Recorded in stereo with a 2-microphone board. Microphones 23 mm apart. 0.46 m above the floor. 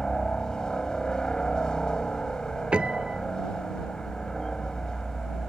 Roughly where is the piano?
Right.